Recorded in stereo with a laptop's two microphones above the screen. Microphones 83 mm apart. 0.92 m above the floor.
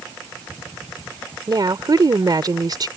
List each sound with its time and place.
1.5 s a woman speaking: 55° right (ahead or behind)